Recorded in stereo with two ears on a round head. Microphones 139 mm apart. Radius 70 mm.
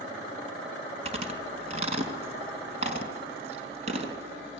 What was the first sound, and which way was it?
Chewing, 40° right (ahead or behind).